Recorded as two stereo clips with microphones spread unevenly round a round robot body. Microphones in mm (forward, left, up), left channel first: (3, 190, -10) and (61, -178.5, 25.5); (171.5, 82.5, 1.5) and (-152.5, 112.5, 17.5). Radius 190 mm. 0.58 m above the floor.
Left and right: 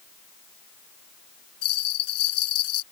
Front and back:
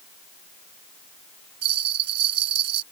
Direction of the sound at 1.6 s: 155° left.